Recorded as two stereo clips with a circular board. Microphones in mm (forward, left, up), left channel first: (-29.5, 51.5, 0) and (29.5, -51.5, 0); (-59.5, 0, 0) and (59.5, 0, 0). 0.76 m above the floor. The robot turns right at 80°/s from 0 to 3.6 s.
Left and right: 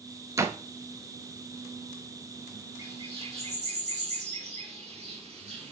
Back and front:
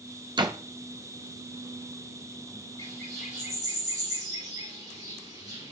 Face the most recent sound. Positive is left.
turn(degrees=-60)